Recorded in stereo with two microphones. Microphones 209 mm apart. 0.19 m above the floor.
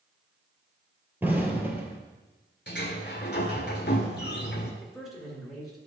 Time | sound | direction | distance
1.2 | an explosion | 10° right (ahead or behind) | 1.3 m
2.7 | a sliding door | 55° left (ahead or behind) | 1.3 m
4.8 | a man speaking | centre (ahead or behind) | 2.5 m